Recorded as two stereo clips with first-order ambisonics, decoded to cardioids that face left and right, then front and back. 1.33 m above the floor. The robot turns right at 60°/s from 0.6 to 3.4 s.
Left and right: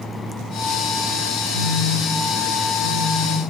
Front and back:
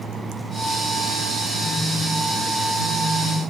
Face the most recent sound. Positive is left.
turn(degrees=50)